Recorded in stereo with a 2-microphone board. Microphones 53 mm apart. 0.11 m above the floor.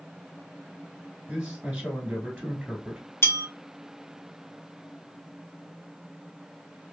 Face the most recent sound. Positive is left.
turn(degrees=55)  # may be behind; listen again after turning